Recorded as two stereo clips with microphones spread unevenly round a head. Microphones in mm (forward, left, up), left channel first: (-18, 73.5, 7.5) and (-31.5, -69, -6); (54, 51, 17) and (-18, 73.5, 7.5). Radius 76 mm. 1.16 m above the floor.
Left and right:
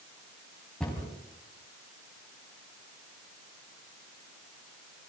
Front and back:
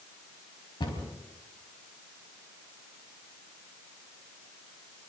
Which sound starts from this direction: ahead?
A cupboard door, at 0.8 s.